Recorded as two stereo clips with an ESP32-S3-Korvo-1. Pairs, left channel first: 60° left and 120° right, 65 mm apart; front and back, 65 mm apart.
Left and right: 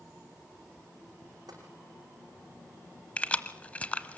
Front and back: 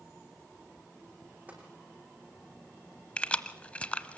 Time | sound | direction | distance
1.5 | tapping | 110° right | 6 m
3.2 | keys jangling | 35° left | 0.9 m